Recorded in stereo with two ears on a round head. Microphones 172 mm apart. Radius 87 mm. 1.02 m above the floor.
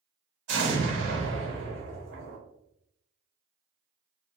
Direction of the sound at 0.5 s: 65° right (ahead or behind).